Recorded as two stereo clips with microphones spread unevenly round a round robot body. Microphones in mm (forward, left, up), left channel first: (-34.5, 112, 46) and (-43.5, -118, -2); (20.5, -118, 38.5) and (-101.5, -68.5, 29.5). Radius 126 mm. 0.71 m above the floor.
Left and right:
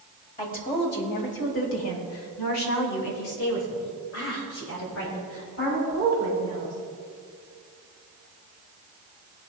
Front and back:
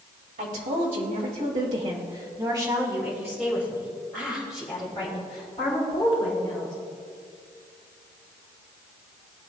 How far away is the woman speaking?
About 3.5 m.